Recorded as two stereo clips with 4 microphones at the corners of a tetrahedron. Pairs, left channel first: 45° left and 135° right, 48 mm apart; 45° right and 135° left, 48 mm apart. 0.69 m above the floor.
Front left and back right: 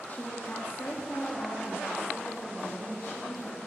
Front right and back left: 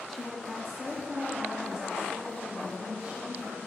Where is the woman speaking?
45° left, 1.2 m; by 3.6 s 65° left, 3.5 m.